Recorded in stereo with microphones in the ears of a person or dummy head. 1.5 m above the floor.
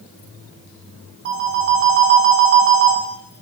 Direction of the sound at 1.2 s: 60° right (ahead or behind).